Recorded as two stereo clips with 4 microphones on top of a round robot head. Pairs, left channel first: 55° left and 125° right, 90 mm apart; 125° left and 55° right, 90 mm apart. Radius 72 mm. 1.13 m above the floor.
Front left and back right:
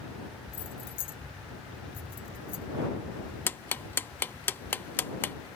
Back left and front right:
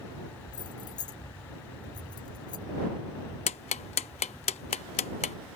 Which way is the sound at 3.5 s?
125° left.